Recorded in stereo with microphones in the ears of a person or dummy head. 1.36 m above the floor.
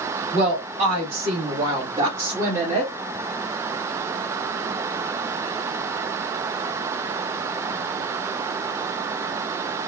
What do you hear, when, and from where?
0.3 s a woman speaking: 35° right (ahead or behind), 3 m; by 2.9 s 10° right (ahead or behind), 1.5 m